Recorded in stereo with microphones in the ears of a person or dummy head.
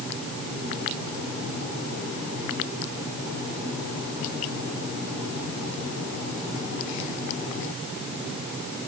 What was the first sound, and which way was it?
Only background noise.